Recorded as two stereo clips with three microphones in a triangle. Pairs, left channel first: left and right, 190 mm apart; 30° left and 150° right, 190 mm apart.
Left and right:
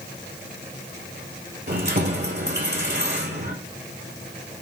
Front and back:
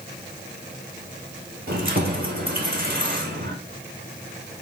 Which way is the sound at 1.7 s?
115° right.